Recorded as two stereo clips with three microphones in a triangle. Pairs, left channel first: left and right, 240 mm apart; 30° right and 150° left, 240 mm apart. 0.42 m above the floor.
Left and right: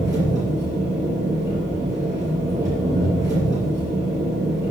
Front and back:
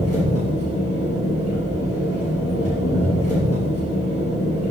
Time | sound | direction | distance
0.0 | an engine running | 15° right | 6 m